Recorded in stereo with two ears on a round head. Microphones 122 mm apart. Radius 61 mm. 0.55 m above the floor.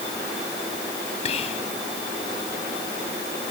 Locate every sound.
1.2 s whispering: 50° left (ahead or behind)